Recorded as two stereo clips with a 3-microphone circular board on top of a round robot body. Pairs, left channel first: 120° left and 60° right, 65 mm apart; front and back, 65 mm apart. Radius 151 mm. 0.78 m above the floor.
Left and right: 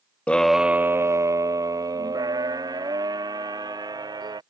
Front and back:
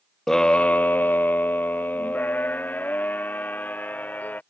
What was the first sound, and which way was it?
A scream, 75° left.